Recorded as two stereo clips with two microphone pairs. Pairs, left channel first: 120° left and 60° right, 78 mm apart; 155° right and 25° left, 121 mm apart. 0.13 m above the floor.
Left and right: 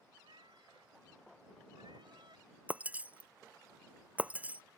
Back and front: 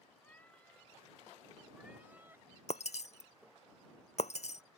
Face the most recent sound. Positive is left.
turn(degrees=-135)